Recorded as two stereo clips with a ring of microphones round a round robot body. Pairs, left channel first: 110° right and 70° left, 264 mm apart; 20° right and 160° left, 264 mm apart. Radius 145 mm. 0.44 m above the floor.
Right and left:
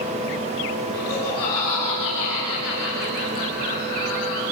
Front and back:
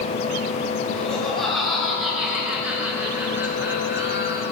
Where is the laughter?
110° right, 9 m; by 4.4 s 125° right, 8 m.